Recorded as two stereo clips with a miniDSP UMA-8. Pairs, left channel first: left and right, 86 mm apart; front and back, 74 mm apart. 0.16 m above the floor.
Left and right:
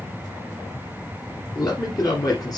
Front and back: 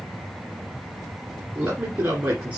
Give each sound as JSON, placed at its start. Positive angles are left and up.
{"t": 1.6, "sound": "a man speaking", "azimuth_deg": 120, "distance_m": 1.9}